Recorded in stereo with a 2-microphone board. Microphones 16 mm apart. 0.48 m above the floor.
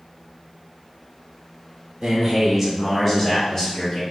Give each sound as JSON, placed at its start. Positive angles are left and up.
{"t": 2.0, "sound": "a man speaking", "side_deg": -45, "distance_m": 1.0}